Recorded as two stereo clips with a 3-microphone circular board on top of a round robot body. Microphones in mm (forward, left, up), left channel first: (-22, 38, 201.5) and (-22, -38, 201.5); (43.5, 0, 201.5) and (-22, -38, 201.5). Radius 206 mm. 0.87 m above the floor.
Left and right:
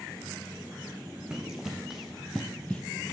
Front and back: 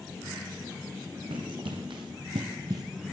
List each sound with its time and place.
1.3 s running footsteps: 170° right, 2.5 m; by 2.8 s 160° left, 1.0 m